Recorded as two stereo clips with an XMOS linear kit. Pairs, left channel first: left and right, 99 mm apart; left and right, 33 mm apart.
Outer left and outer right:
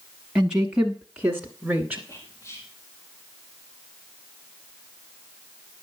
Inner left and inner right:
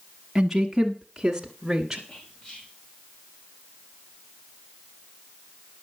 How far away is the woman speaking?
About 1.1 m.